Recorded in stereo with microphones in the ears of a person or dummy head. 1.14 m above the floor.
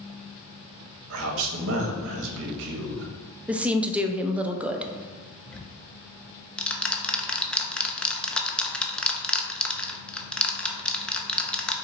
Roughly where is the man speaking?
Right.